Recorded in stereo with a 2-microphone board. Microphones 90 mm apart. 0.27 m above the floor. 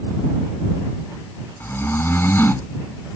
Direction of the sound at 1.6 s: 25° left (ahead or behind).